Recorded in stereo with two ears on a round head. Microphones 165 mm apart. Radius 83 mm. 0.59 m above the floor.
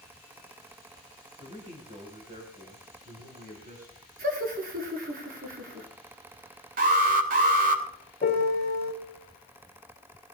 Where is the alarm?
50° right (ahead or behind), 3 m.